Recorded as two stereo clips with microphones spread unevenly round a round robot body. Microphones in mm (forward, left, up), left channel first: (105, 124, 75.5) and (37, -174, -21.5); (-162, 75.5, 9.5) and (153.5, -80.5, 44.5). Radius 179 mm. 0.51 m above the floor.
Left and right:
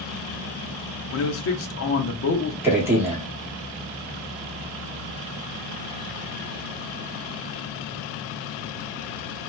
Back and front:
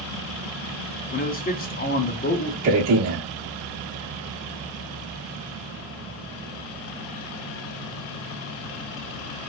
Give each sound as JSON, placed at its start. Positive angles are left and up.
{"t": 1.1, "sound": "a man speaking", "azimuth_deg": 120, "distance_m": 0.7}
{"t": 2.6, "sound": "a man speaking", "azimuth_deg": -45, "distance_m": 0.9}